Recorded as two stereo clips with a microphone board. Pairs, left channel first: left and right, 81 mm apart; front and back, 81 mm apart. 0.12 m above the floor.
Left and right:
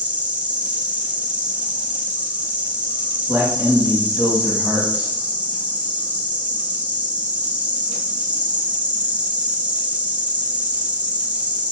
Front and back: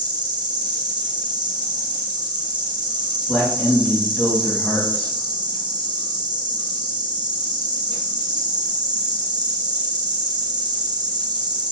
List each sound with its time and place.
0.0 s an insect: 160° right, 1.0 m
3.3 s a man speaking: 55° right, 1.7 m